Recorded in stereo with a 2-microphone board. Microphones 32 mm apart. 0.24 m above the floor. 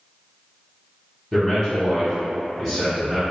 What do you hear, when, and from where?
1.3 s a man speaking: 5° right (ahead or behind), 1.6 m